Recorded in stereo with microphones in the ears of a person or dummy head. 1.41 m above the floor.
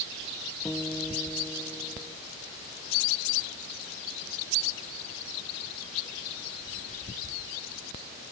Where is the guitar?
5° left (ahead or behind).